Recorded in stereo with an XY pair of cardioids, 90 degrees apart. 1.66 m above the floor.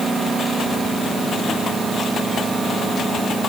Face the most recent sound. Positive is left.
No sound to turn to.